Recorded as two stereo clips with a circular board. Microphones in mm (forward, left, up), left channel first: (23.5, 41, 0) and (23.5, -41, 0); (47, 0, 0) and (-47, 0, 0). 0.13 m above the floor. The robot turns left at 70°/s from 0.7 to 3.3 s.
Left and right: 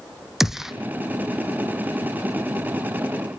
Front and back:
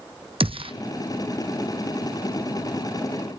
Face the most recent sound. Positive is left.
turn(degrees=0)